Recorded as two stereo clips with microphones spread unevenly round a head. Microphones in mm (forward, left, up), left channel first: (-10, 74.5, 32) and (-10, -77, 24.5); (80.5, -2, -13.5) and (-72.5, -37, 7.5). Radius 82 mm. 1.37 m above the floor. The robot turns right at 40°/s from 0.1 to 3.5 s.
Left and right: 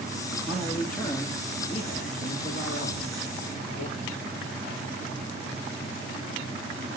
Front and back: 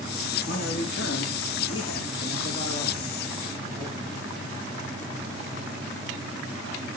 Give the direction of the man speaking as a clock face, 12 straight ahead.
12 o'clock.